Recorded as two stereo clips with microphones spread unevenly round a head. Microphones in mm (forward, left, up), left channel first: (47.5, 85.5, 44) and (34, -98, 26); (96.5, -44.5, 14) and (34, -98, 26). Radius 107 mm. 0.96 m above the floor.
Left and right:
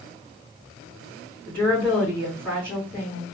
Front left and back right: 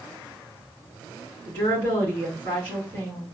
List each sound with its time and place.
1.5 s a woman speaking: 170° left, 2.5 m